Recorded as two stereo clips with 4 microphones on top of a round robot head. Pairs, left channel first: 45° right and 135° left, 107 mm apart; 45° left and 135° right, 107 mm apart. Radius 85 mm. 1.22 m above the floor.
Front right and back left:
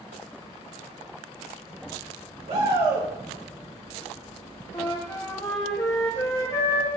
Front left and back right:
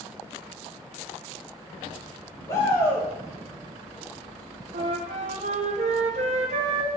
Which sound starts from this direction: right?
A flute, at 4.7 s.